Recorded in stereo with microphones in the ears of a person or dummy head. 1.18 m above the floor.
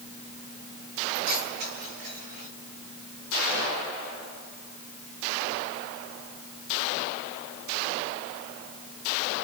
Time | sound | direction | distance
1.1 | keys jangling | 55° right (ahead or behind) | 4 m